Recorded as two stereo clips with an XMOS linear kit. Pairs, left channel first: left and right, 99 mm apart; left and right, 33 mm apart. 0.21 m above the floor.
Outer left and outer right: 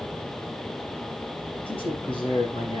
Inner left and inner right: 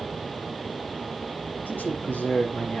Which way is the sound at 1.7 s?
65° left (ahead or behind).